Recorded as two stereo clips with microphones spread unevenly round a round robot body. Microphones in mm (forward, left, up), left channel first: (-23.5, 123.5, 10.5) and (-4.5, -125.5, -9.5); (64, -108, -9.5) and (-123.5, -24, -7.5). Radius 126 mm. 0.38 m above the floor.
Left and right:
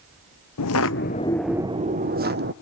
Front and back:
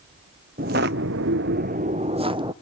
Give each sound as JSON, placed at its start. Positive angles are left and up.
{"t": 0.6, "sound": "footsteps", "azimuth_deg": 100, "distance_m": 0.7}